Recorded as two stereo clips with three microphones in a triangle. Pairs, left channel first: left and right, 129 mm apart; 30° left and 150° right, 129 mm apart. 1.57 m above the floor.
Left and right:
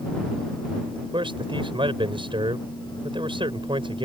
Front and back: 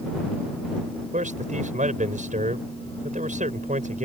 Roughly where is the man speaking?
Behind right.